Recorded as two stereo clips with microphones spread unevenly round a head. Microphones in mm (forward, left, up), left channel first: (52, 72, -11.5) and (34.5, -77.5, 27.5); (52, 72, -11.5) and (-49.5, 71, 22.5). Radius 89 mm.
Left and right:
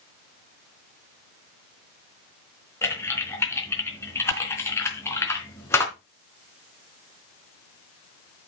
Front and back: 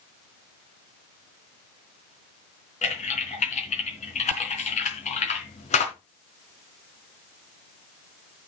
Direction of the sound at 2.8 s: 5° left.